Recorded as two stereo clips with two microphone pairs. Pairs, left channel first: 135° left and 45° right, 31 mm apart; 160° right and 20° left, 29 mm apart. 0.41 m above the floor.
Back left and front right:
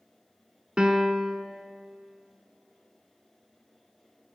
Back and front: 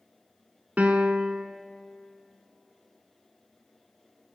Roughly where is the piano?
Ahead.